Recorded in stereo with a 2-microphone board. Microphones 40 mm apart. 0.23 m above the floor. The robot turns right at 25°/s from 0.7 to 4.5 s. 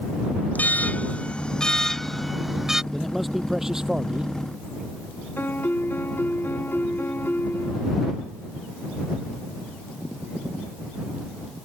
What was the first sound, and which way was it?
An alarm, 135° left.